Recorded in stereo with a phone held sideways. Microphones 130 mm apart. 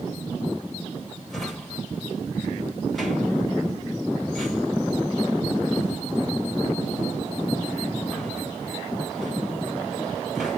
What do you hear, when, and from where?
1.3 s a drawer: centre (ahead or behind), 4.5 m